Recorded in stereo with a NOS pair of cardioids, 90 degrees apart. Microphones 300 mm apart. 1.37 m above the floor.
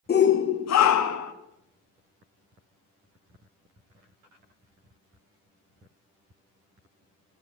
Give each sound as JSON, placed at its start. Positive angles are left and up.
{"t": 0.1, "sound": "a shout", "azimuth_deg": 35, "distance_m": 1.1}